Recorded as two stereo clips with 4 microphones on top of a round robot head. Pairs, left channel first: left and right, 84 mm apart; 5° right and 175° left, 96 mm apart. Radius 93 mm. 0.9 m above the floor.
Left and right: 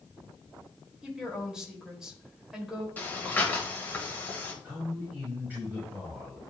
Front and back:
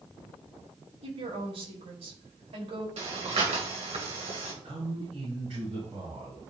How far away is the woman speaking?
About 2.5 m.